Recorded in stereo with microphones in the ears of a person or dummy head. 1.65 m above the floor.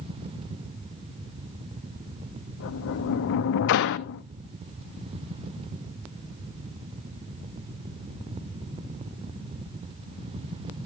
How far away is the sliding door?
About 0.7 m.